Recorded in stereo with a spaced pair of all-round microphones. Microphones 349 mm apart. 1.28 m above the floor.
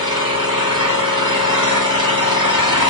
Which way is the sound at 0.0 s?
40° right (ahead or behind).